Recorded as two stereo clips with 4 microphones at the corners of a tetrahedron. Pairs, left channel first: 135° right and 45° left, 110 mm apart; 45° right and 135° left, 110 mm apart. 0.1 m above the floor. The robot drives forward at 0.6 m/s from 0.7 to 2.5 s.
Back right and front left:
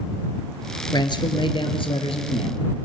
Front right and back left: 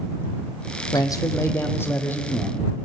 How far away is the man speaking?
About 2 m.